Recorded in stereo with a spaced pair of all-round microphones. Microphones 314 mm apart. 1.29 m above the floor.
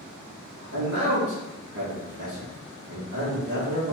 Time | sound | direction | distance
0.7 | a man speaking | 45° right (ahead or behind) | 1.6 m